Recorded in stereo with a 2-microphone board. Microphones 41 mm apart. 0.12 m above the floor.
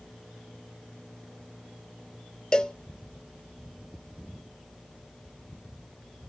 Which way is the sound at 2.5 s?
20° left (ahead or behind).